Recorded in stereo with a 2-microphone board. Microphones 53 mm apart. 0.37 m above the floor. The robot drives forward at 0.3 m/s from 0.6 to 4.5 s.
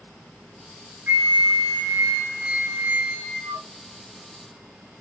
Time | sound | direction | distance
1.1 | a flute | 45° right (ahead or behind) | 2 m